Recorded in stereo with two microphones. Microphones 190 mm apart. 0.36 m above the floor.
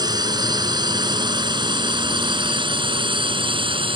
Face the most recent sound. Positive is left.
turn(degrees=-25)  # may be behind; listen again after turning